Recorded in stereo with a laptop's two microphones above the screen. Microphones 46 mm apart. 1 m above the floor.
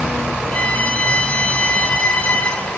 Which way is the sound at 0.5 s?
30° left (ahead or behind).